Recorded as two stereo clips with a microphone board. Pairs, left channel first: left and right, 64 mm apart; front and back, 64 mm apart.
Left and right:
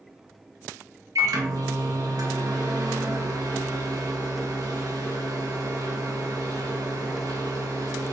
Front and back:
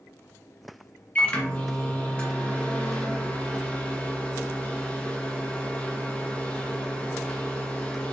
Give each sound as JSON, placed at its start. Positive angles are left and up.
{"t": 1.1, "sound": "a microwave", "azimuth_deg": -70, "distance_m": 0.9}